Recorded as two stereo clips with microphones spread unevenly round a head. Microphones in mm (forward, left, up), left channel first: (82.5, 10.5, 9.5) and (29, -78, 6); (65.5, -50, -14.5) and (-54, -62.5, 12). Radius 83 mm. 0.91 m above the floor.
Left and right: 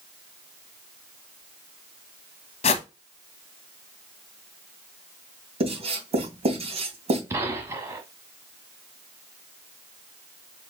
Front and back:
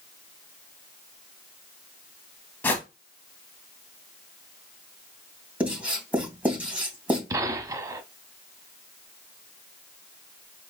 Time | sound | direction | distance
2.6 | a whoosh | 75° left | 0.9 m
5.6 | writing | 95° right | 3 m
7.3 | a gunshot | straight behind | 0.9 m